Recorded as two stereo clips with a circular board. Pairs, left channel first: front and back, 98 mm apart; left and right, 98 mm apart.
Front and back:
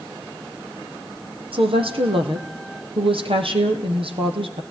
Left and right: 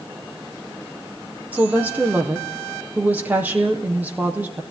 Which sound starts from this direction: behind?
A woman speaking, at 1.5 s.